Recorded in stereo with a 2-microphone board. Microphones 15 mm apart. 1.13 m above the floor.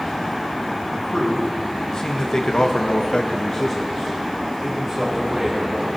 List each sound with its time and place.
0.9 s a man speaking: 30° left (ahead or behind), 3 m; by 5.9 s 5° right (ahead or behind), 3.5 m